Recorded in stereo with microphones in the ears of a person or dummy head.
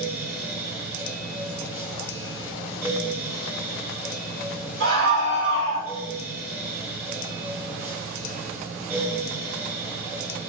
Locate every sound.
0.0 s a fan: 15° right (ahead or behind), 1.8 m
4.8 s a scream: 65° right (ahead or behind), 3 m